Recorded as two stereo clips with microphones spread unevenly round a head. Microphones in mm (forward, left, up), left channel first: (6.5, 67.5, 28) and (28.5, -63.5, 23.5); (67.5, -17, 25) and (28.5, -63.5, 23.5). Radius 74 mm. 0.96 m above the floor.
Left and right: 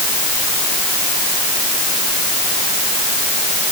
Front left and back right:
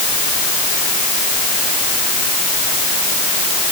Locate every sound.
Only background noise.